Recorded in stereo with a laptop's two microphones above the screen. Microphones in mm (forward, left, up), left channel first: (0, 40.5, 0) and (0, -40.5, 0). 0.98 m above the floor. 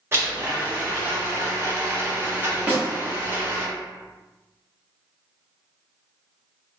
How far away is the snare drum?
About 1.4 m.